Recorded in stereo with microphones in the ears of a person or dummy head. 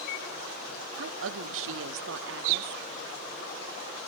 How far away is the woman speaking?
About 0.8 m.